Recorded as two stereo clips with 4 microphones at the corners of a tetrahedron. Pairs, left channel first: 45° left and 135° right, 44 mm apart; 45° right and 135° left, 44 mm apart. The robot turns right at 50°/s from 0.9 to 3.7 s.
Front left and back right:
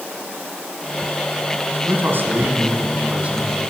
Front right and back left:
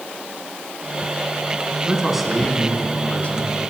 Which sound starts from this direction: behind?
A man speaking, at 1.9 s.